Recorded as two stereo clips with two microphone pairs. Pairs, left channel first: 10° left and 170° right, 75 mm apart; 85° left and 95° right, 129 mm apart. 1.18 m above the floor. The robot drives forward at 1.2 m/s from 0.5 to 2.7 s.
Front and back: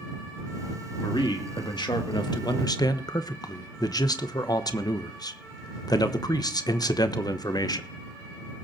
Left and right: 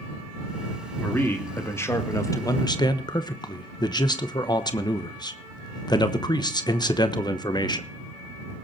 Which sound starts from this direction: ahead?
A man speaking, at 1.0 s.